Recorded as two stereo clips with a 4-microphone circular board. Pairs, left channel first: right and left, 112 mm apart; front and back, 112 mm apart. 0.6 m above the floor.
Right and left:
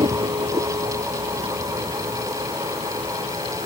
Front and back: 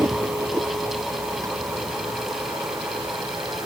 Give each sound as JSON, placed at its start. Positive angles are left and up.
{"t": 0.0, "sound": "a vehicle", "azimuth_deg": 115}